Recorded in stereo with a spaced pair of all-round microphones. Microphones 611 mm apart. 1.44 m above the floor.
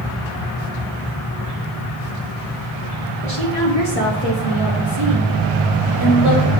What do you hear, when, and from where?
3.2 s a woman speaking: 90° right, 2.0 m; by 6.5 s 50° right (ahead or behind), 4 m